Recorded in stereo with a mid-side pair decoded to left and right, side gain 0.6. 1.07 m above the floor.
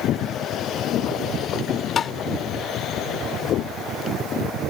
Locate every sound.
2.0 s tapping: 35° left